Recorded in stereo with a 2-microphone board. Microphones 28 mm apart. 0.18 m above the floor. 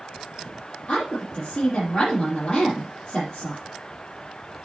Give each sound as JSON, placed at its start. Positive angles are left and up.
{"t": 0.9, "sound": "a woman speaking", "side_deg": 30, "distance_m": 5.0}